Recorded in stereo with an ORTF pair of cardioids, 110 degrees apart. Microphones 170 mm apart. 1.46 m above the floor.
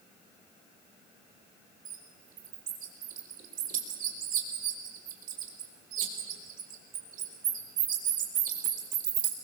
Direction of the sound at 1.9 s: 60° right.